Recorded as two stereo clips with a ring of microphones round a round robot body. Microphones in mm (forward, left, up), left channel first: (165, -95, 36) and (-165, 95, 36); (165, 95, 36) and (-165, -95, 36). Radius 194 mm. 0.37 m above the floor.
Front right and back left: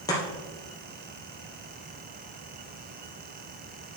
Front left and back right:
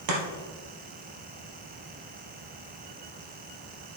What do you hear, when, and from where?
0.1 s chopping: 110° right, 3 m